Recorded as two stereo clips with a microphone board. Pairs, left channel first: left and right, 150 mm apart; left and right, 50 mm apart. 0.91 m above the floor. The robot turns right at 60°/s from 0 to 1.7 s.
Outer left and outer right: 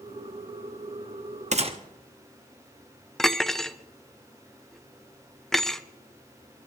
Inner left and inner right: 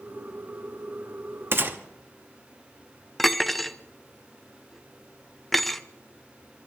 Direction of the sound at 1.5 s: 50° right (ahead or behind).